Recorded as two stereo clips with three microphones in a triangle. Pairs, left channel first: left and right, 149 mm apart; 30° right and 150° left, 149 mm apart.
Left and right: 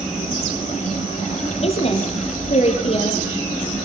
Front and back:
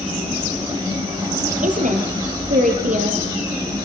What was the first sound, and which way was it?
A woman speaking, 130° left.